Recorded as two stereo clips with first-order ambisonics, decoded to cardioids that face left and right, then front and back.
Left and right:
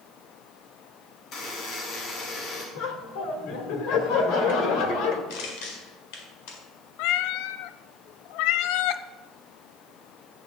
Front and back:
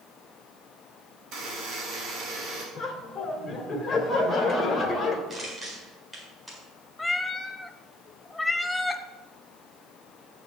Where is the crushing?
100° left, 4.5 m.